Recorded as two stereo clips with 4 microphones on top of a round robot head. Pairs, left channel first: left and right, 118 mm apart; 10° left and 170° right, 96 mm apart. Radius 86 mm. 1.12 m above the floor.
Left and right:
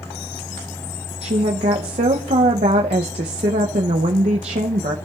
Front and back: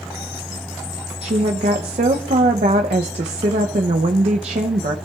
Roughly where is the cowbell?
No cowbell in this recording.